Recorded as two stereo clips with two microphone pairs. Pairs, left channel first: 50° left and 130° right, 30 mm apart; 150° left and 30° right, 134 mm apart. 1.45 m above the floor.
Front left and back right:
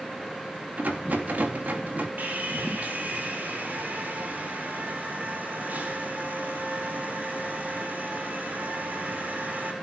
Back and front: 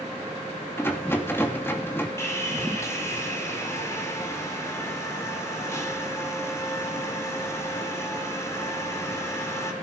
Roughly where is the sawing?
Behind right.